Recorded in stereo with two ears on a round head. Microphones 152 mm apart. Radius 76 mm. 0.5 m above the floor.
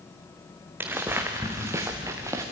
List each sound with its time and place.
0.8 s footsteps: 10° right (ahead or behind), 2.5 m; by 2.4 s 15° right (ahead or behind), 3.5 m